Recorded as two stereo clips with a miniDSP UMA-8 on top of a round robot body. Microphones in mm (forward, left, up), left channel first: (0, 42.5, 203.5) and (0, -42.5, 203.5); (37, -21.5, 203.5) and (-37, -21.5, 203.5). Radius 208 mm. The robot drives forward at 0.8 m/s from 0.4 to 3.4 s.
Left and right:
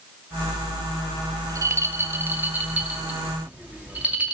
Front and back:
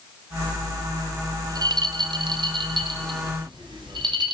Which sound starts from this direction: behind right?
A rattle, at 1.4 s.